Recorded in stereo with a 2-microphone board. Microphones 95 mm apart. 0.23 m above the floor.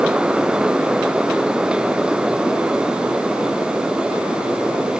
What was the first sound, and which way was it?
Only background noise.